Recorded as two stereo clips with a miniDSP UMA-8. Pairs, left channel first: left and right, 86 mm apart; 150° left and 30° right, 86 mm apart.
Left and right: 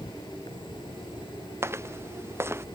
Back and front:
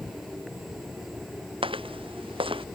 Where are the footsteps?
30° right; by 2.6 s 25° right.